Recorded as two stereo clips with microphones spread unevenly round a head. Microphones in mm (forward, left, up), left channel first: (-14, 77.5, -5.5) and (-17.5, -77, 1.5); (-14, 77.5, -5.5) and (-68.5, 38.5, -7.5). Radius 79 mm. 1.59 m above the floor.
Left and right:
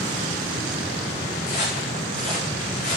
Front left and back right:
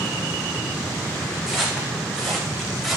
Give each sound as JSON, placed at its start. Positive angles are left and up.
{"t": 1.5, "sound": "footsteps", "azimuth_deg": 130, "distance_m": 7.0}